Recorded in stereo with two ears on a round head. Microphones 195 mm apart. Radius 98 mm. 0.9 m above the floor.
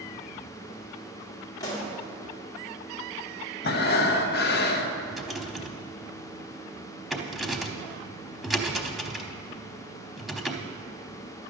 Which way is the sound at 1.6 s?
15° left (ahead or behind).